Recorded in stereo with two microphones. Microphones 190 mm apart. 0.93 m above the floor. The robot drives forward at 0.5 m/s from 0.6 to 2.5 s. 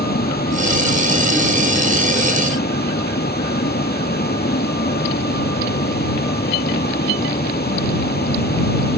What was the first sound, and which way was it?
A vehicle, 55° left (ahead or behind).